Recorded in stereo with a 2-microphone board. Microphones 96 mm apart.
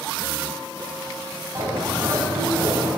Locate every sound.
1.6 s a bird: 35° right (ahead or behind), 5.5 m